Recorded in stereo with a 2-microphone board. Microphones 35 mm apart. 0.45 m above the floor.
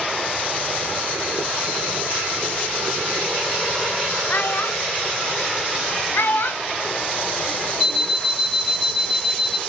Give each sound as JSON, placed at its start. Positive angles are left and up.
{"t": 4.3, "sound": "a child speaking", "side_deg": 55, "distance_m": 0.9}
{"t": 6.1, "sound": "a child speaking", "side_deg": 70, "distance_m": 1.3}
{"t": 7.8, "sound": "an alarm clock", "side_deg": -10, "distance_m": 1.9}